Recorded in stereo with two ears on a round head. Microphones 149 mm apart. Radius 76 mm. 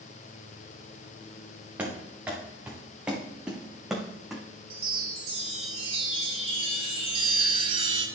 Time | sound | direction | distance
1.8 | running footsteps | 10° right (ahead or behind) | 3.5 m
4.7 | a chime | 35° right (ahead or behind) | 1.9 m